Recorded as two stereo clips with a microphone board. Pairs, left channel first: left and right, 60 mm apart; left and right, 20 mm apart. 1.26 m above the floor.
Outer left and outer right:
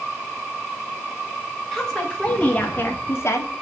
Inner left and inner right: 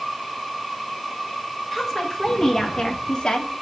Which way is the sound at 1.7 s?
5° left (ahead or behind).